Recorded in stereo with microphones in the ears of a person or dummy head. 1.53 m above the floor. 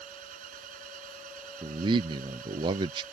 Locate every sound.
0.0 s an engine running: 50° right (ahead or behind)
1.6 s a man speaking: 25° right (ahead or behind)